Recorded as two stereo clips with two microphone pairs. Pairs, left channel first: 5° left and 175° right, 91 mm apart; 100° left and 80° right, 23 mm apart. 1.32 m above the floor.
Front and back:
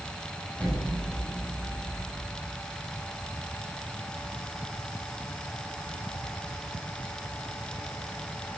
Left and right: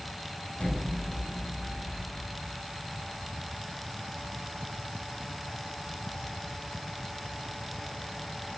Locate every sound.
0.6 s an explosion: 80° left, 9.5 m